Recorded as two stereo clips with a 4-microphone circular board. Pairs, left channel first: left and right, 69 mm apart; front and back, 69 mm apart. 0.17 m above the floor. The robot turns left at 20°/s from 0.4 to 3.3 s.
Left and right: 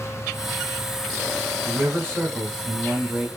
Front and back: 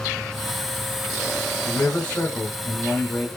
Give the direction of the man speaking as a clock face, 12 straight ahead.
2 o'clock.